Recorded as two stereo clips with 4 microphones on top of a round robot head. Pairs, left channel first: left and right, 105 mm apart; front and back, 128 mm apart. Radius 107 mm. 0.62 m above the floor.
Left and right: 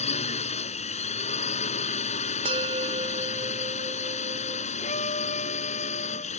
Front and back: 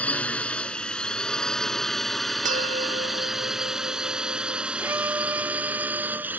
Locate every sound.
0.0 s a drone: 80° left; by 6.4 s 105° left
2.5 s a bell: 140° right
4.8 s a violin: 110° left